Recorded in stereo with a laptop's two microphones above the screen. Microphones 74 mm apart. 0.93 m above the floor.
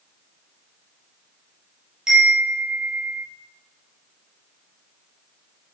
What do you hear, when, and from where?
2.1 s a chime: 10° right (ahead or behind), 5.5 m